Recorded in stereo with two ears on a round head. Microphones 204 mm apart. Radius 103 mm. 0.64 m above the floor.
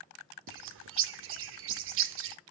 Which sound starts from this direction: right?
A bird, at 0.5 s.